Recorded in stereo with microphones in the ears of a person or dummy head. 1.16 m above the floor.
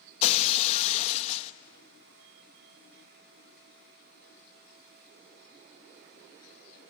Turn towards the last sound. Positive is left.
turn(degrees=35)  # may be behind; listen again after turning